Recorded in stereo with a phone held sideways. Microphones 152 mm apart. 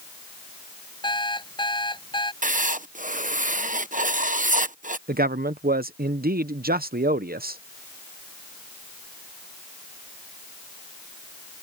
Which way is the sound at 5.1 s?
85° right.